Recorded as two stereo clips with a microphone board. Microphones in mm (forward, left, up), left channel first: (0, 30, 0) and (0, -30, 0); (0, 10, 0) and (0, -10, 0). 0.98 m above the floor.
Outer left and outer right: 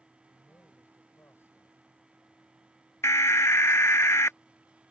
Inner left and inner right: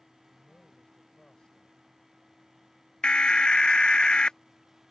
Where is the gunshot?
No gunshot in this recording.